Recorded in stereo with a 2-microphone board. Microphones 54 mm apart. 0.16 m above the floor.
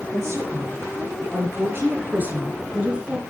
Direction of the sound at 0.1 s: 50° right (ahead or behind).